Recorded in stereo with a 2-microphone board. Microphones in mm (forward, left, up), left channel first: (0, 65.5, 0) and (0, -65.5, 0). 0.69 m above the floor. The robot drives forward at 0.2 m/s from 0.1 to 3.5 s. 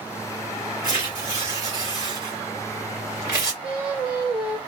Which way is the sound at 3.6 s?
5° right (ahead or behind).